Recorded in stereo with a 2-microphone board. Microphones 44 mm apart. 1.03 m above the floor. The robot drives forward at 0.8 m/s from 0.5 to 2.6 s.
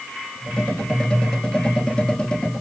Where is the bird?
I don't hear a bird.